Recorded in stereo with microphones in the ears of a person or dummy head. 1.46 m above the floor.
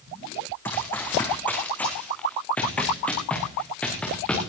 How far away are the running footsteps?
About 3.5 m.